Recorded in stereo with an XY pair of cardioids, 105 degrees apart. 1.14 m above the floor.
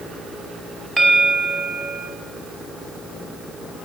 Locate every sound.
1.0 s a bell: 20° right, 5 m